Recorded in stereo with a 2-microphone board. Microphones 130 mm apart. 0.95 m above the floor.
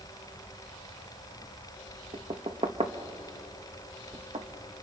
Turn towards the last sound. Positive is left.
turn(degrees=-50)  # may be behind; listen again after turning